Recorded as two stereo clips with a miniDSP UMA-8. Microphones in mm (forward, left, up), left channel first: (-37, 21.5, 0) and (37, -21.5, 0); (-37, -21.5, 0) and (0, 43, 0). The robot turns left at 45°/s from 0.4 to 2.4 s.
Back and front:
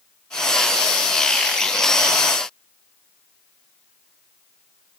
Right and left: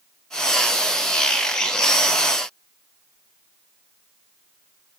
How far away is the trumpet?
No trumpet in this recording.